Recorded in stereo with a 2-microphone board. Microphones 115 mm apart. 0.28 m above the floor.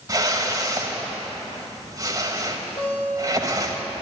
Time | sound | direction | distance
0.1 | a whoosh | 30° right (ahead or behind) | 1.6 m
2.8 | a guitar | 45° left (ahead or behind) | 5 m